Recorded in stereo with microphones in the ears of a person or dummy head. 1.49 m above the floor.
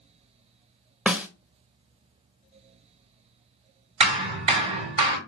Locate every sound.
1.1 s a snare drum: 5° right (ahead or behind), 0.6 m
4.0 s hammering: 35° right (ahead or behind), 1.6 m